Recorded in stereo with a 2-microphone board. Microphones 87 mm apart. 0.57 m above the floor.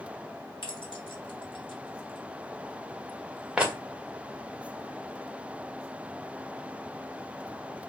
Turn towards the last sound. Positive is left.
turn(degrees=-20)  # may be behind; listen again after turning